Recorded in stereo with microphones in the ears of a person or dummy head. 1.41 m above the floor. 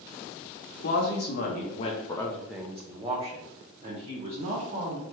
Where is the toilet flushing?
I don't hear a toilet flushing.